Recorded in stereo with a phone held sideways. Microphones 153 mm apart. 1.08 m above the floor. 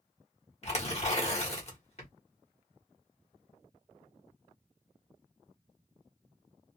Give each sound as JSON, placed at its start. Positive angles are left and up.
{"t": 0.6, "sound": "tearing paper", "side_deg": 45, "distance_m": 1.5}